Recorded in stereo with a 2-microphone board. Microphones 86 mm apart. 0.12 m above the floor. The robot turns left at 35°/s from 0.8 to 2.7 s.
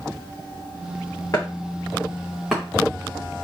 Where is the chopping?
40° left (ahead or behind), 2.5 m; by 2.6 s 5° right (ahead or behind), 2.5 m.